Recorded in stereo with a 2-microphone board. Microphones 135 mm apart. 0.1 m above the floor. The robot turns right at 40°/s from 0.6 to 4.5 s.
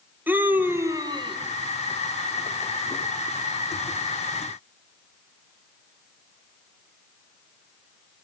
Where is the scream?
165° right, 3.5 m; by 1.4 s 135° right, 3.5 m.